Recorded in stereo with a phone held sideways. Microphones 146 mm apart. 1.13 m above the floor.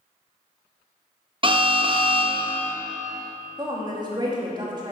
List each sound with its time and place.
1.4 s an alarm: 35° right (ahead or behind), 0.9 m
3.6 s a woman speaking: 30° right (ahead or behind), 2.5 m